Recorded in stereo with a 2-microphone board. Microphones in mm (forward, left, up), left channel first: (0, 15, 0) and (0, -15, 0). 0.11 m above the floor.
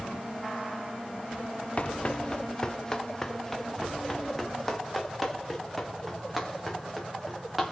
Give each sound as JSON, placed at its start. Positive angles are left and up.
{"t": 1.8, "sound": "running footsteps", "side_deg": 40, "distance_m": 0.7}